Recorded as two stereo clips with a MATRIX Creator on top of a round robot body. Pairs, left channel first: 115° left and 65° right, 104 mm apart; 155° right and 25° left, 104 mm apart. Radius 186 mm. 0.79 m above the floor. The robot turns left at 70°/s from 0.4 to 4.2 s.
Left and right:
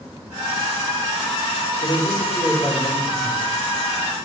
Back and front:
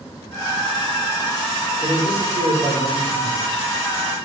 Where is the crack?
No crack in this recording.